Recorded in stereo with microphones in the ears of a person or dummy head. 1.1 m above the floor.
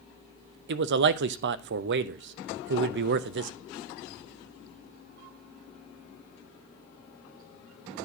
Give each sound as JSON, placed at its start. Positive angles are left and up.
{"t": 0.7, "sound": "a man speaking", "side_deg": -65, "distance_m": 0.6}